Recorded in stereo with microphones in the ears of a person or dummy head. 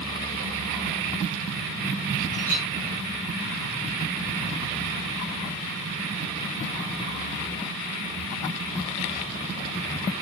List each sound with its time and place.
2.3 s a clink: 40° right (ahead or behind), 3 m